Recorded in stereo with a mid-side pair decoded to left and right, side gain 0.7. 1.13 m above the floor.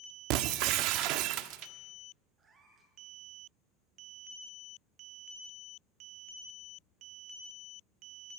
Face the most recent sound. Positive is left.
turn(degrees=-30)